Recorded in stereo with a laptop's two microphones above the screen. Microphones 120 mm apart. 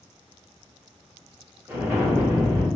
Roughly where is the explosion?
Right.